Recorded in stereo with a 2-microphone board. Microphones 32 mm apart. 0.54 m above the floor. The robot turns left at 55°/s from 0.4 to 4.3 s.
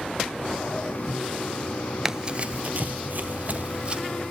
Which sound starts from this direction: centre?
Running footsteps, at 2.0 s.